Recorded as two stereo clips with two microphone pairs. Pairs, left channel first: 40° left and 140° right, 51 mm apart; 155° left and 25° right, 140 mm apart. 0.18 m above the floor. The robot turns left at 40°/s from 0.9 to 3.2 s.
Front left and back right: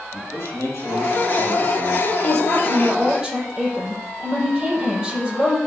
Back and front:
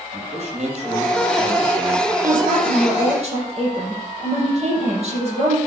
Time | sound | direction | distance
0.1 | a man speaking | 15° left | 6 m
2.2 | a woman speaking | 25° right | 6 m